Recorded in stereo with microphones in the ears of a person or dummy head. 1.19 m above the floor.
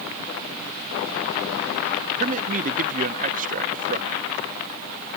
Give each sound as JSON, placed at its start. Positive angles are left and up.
{"t": 2.2, "sound": "a man speaking", "side_deg": -40}